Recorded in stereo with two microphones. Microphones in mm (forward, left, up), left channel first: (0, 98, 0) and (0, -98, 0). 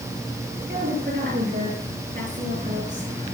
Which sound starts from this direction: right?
A woman speaking, at 0.7 s.